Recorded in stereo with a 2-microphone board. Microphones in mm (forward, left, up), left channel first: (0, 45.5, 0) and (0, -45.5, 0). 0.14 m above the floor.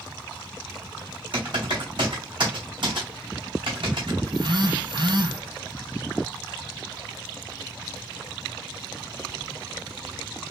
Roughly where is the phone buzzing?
Right.